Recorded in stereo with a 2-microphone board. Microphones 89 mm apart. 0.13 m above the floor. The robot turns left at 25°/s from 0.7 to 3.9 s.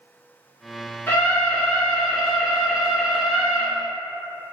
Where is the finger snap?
I don't hear a finger snap.